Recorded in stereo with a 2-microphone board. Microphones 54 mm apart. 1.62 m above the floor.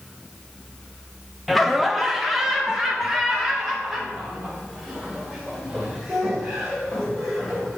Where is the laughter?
Centre (ahead or behind), 0.6 m; by 7.8 s 10° right (ahead or behind), 4 m.